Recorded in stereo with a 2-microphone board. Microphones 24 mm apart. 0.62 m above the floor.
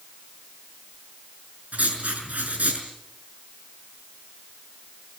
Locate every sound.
1.7 s writing: 85° right, 5.5 m